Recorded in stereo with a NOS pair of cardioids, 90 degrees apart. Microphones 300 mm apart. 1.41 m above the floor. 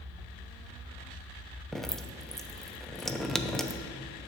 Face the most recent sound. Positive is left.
turn(degrees=0)